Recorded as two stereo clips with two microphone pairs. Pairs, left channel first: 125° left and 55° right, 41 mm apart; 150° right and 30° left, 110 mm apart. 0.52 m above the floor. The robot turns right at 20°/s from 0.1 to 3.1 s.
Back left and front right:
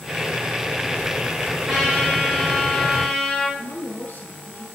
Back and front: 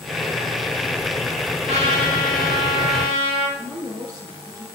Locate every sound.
1.7 s a trumpet: 20° left, 7 m; by 3.5 s 50° left, 7 m
3.6 s a woman speaking: 85° left, 6 m